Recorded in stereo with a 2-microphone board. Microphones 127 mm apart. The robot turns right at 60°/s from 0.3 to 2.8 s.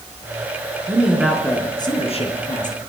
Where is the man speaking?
20° right, 4.5 m; by 2.8 s 95° left, 4.5 m.